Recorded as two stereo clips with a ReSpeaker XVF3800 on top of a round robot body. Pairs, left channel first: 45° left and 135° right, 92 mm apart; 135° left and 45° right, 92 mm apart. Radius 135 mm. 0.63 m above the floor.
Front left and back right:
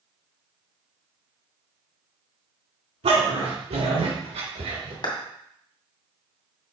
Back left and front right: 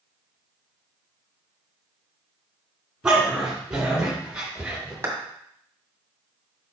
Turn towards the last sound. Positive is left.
turn(degrees=15)